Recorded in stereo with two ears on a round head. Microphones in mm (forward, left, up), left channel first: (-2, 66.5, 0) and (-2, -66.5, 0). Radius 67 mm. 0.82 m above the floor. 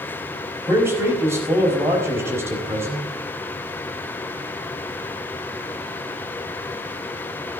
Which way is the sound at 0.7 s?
20° right (ahead or behind).